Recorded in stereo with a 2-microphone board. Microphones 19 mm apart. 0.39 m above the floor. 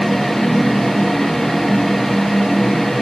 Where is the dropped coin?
No dropped coin in this recording.